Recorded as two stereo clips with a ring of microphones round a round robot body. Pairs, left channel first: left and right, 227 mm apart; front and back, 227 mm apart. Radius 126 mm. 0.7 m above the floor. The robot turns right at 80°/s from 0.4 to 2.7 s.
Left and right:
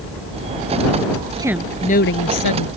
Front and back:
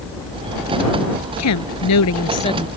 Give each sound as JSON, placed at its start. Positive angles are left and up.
{"t": 1.4, "sound": "a woman speaking", "azimuth_deg": -15}